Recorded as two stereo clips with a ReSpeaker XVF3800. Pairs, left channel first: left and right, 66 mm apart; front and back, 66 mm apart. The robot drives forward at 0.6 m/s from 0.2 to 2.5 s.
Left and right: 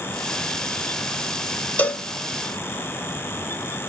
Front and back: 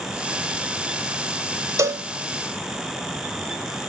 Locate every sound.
1.8 s a cowbell: 155° left, 0.8 m; by 2.0 s 160° left, 0.9 m